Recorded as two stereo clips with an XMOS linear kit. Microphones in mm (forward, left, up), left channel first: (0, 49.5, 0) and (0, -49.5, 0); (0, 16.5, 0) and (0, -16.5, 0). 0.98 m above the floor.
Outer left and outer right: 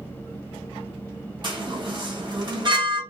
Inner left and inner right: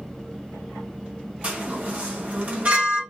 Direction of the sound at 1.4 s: 50° right (ahead or behind).